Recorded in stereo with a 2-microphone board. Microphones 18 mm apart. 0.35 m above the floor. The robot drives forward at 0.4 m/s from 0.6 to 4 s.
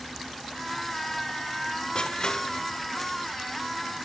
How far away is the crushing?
About 1.3 m.